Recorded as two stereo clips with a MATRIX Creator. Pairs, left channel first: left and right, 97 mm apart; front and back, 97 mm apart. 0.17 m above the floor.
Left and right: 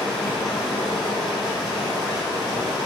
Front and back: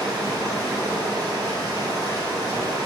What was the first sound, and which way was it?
Running water, straight behind.